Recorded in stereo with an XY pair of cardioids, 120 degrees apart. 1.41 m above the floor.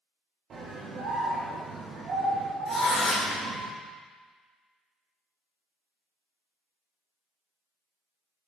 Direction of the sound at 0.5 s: 50° right.